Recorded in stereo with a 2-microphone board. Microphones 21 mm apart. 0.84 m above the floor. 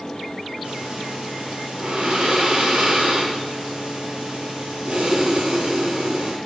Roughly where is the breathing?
Right.